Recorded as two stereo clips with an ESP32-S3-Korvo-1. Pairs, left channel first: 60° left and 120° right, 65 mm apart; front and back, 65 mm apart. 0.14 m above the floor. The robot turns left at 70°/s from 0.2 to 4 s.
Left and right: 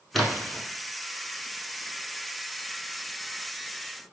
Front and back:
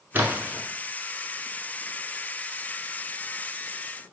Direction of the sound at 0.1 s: 145° left.